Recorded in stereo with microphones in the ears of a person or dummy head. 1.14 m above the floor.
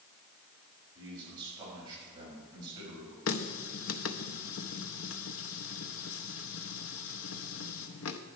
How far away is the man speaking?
About 5.5 m.